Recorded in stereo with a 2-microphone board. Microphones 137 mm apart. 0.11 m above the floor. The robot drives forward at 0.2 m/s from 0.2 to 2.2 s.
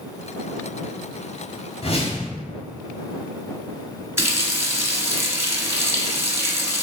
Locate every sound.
1.8 s a whoosh: 50° left (ahead or behind), 1.0 m
4.2 s a running tap: 20° right (ahead or behind), 0.7 m